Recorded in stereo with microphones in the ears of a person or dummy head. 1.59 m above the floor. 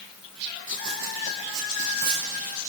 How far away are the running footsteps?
About 3.5 m.